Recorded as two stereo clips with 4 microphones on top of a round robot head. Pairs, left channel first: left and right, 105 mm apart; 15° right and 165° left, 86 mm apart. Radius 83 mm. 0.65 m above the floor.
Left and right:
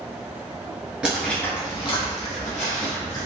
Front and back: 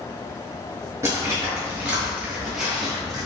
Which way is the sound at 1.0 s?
165° right.